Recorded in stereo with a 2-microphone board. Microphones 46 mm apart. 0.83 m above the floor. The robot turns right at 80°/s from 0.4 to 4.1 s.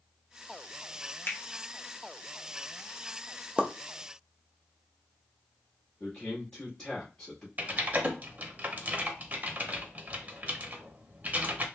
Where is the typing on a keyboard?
35° right (ahead or behind), 0.7 m.